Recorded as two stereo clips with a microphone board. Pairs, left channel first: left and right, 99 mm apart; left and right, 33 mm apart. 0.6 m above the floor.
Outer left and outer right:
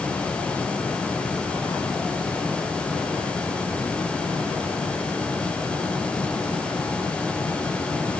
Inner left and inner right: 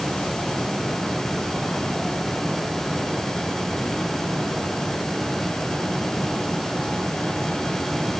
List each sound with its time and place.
Only background noise.